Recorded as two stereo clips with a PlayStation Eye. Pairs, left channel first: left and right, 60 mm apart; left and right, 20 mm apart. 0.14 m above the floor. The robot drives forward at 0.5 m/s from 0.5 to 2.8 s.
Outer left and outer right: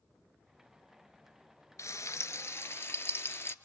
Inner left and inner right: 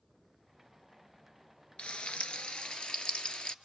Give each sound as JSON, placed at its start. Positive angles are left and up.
{"t": 1.8, "sound": "frying", "side_deg": 55, "distance_m": 0.9}